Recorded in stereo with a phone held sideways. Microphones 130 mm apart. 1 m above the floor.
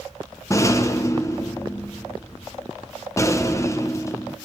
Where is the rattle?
25° left (ahead or behind), 0.6 m.